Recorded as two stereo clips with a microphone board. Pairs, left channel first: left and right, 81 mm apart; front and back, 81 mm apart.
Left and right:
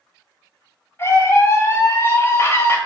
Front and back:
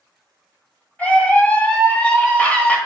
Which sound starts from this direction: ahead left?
A scream, at 1.0 s.